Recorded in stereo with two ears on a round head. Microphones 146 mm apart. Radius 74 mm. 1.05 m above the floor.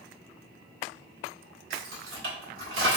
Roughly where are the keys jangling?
Right.